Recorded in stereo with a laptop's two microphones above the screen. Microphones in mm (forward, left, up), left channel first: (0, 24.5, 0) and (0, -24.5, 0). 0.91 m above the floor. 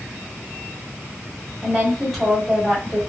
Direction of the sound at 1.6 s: 5° left (ahead or behind).